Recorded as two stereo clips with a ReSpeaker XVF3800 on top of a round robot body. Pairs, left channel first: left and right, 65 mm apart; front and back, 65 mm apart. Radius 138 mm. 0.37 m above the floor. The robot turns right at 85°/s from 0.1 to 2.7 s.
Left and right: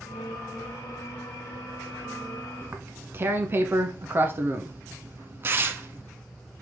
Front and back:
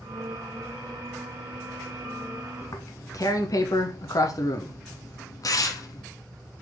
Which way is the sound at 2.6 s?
40° right.